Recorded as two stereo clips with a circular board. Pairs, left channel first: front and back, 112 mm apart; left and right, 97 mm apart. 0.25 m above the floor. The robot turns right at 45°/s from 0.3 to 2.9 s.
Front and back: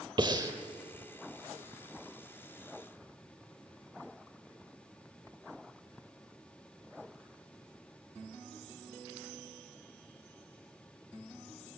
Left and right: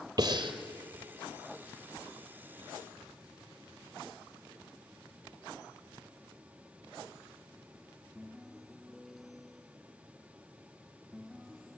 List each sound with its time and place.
0.2 s breathing: 135° right, 2.0 m; by 0.5 s 125° right, 2.0 m